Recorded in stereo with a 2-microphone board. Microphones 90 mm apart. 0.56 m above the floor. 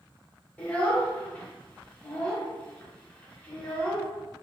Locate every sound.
0.6 s a child speaking: 15° left (ahead or behind), 0.9 m